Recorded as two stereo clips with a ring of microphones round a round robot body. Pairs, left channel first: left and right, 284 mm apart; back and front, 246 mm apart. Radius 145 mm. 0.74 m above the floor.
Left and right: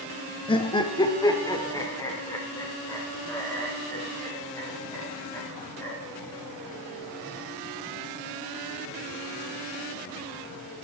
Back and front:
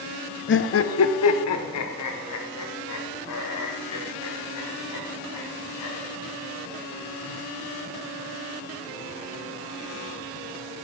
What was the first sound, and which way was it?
Laughter, 160° left.